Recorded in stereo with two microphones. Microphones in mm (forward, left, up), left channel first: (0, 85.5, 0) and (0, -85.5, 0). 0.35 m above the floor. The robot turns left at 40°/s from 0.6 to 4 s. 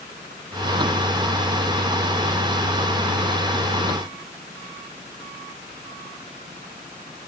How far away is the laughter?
I don't hear laughter.